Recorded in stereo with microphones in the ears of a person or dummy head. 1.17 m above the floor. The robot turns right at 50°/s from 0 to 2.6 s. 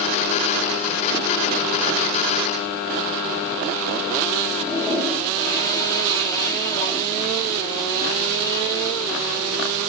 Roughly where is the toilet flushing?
Left.